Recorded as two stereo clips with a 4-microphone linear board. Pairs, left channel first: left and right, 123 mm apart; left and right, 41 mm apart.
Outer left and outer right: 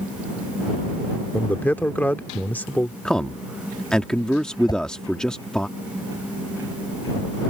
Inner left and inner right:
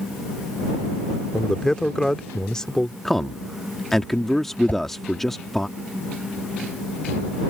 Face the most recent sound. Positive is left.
turn(degrees=35)  # may be behind; listen again after turning